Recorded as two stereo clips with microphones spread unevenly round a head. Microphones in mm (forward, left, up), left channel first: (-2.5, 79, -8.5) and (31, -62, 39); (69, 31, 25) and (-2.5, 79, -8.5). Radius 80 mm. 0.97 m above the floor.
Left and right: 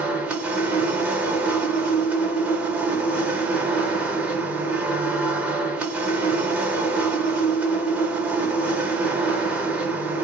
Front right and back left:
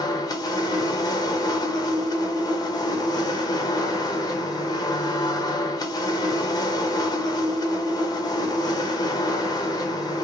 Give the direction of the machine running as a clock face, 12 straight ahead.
11 o'clock.